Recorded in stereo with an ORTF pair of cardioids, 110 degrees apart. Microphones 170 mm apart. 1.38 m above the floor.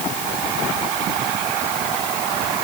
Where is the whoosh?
I don't hear a whoosh.